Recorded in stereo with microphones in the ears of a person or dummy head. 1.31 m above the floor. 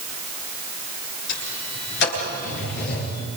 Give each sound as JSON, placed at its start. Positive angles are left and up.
{"t": 1.3, "sound": "a sliding door", "side_deg": 65, "distance_m": 9.5}